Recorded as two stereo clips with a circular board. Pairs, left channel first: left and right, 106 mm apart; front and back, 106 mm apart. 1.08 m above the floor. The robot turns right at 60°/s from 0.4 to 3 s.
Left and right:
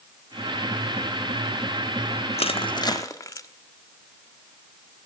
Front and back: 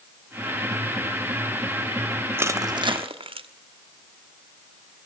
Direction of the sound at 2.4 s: 110° left.